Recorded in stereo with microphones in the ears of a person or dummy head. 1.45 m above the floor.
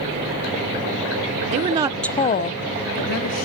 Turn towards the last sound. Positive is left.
turn(degrees=80)